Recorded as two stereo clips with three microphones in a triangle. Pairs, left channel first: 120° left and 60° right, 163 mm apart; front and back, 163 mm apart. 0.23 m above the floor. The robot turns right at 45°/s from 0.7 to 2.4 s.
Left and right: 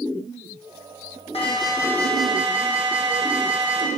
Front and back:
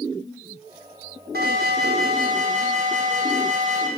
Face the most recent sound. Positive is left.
turn(degrees=-145)